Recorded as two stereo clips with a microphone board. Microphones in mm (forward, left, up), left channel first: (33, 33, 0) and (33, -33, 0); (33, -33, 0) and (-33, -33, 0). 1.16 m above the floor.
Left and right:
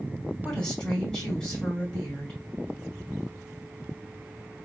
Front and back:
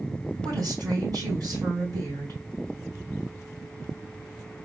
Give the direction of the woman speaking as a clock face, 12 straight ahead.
6 o'clock.